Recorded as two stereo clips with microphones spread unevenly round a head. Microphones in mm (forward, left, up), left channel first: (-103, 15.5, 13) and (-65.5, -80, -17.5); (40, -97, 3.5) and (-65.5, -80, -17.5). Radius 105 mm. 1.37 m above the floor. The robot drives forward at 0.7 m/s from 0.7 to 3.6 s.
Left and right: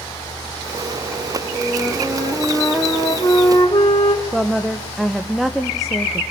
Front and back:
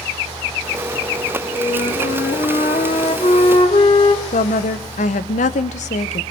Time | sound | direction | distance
1.5 | a flute | 25° left | 2.5 m
4.3 | a woman speaking | 15° left | 1.1 m